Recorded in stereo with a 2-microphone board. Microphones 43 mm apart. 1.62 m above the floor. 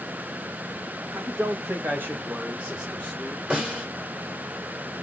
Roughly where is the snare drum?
Right.